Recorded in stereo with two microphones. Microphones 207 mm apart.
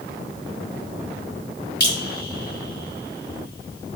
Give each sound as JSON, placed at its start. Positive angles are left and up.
{"t": 1.8, "sound": "dripping", "side_deg": 55, "distance_m": 2.5}